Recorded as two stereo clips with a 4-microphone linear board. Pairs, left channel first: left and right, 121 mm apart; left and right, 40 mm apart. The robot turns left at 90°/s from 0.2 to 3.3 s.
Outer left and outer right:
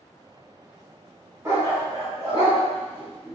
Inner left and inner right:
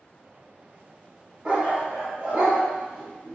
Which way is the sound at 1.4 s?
20° right (ahead or behind).